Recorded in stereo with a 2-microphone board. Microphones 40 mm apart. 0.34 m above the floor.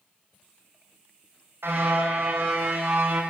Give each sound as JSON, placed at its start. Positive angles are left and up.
{"t": 1.6, "sound": "a car horn", "side_deg": -75, "distance_m": 8.5}